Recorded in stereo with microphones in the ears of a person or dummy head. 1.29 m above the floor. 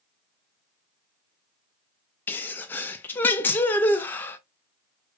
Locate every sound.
2.3 s a sneeze: 10° left (ahead or behind), 0.5 m